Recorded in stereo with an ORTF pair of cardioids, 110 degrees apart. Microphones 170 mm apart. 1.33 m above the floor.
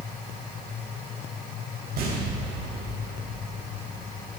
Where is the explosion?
65° right, 5 m.